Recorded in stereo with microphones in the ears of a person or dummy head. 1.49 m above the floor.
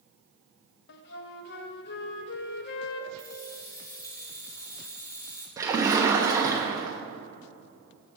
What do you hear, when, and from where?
0.9 s a flute: 60° left (ahead or behind), 0.5 m
3.2 s keys jangling: 20° left (ahead or behind), 1.4 m
5.6 s a splash: 15° right (ahead or behind), 0.7 m